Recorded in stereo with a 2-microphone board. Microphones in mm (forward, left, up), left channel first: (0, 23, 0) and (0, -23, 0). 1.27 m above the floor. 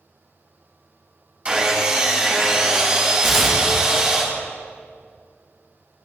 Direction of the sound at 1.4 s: 20° right (ahead or behind).